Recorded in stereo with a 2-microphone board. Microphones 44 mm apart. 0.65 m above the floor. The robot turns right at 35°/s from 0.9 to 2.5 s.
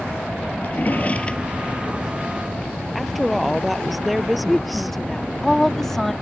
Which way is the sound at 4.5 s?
10° left (ahead or behind).